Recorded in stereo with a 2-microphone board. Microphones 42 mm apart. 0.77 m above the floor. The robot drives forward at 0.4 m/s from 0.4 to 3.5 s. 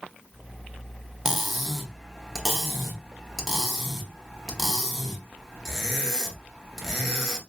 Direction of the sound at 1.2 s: 5° right (ahead or behind).